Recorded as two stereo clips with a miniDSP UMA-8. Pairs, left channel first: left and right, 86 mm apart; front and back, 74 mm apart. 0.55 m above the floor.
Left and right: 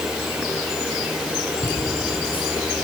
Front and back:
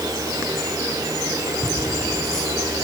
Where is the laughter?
85° left, 5 m.